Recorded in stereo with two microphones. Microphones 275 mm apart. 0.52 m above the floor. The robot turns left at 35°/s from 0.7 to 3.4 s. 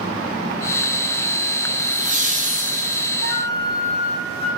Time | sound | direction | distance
1.8 | laughter | 25° right (ahead or behind) | 0.8 m
3.2 | a flute | 60° left (ahead or behind) | 1.8 m